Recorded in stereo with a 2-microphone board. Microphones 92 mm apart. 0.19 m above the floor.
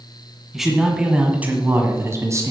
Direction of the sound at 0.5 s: 5° right (ahead or behind).